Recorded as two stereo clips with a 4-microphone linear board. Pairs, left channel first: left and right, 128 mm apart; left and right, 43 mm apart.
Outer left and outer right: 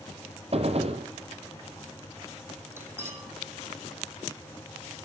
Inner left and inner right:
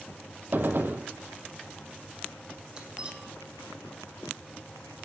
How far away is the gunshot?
About 1.8 m.